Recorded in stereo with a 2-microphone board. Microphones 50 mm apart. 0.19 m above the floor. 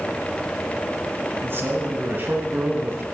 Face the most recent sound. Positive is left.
turn(degrees=-45)  # may be behind; listen again after turning